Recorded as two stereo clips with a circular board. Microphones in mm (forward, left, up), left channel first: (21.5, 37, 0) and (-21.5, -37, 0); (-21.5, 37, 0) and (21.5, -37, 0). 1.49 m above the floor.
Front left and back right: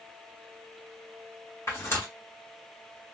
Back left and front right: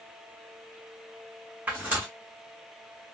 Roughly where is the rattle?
No rattle in this recording.